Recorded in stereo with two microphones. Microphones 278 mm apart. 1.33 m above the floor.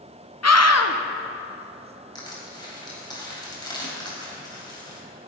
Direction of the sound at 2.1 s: 15° left (ahead or behind).